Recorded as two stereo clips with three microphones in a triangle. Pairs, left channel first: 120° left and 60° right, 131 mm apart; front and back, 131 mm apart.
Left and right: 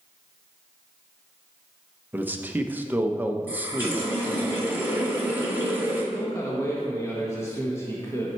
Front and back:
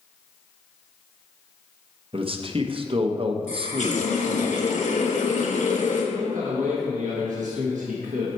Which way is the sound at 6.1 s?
170° right.